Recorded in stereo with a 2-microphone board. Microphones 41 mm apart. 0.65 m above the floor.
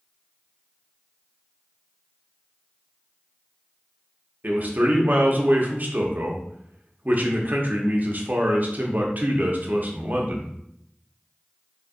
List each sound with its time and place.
4.4 s a man speaking: 50° right (ahead or behind), 0.7 m